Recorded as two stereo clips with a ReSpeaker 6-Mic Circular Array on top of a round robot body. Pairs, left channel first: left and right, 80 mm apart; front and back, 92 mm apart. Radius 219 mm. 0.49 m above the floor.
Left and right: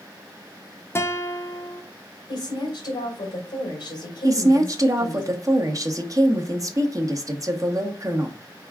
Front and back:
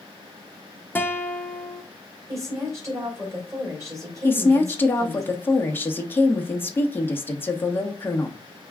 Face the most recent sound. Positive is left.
turn(degrees=-60)